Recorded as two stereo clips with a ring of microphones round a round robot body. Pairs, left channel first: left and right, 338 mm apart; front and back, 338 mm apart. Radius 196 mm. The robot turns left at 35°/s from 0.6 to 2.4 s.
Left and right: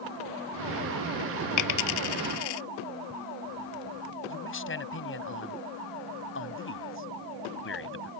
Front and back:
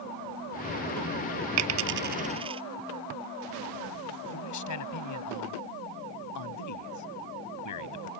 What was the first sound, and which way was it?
A dropped coin, 135° left.